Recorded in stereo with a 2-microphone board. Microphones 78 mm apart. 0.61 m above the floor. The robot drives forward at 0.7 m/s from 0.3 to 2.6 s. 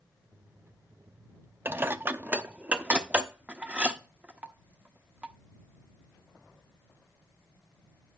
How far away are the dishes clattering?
About 0.5 m.